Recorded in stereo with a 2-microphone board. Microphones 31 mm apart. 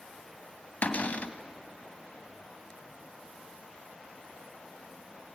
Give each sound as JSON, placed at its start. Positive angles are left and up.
{"t": 0.8, "sound": "a cupboard door", "side_deg": 55, "distance_m": 1.2}